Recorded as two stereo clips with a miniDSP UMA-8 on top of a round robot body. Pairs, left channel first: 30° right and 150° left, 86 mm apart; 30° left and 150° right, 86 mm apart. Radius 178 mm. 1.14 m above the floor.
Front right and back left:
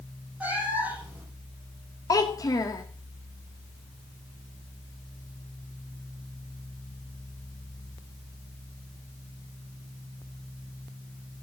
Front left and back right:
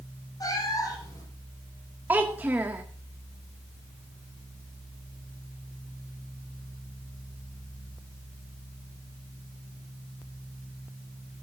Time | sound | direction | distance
0.4 | a cat meowing | 75° left | 7.5 m
2.1 | a child speaking | 80° right | 0.6 m